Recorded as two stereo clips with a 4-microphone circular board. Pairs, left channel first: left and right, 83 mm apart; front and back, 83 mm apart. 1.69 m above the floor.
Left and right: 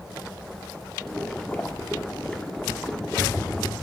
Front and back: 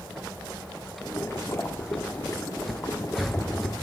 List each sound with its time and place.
1.0 s boiling: 20° left, 1.4 m